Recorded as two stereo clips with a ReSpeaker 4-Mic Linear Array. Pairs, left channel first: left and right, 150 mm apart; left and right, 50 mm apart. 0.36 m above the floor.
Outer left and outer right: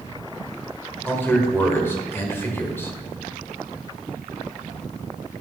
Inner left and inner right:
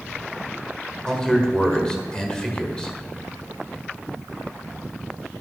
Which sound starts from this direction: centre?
A man speaking, at 1.1 s.